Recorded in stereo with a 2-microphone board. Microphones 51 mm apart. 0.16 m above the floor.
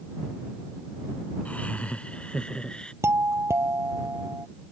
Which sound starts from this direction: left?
Laughter, at 1.4 s.